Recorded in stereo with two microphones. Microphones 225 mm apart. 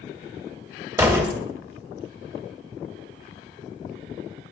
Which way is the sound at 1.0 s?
15° right (ahead or behind).